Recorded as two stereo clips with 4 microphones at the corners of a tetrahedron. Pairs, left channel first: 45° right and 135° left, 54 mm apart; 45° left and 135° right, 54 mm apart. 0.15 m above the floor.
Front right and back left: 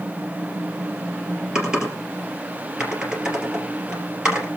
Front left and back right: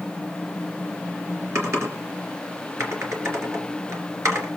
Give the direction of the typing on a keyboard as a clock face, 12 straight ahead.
5 o'clock.